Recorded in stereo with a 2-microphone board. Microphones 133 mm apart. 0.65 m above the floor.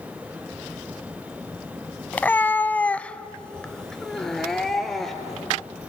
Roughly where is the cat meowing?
Centre.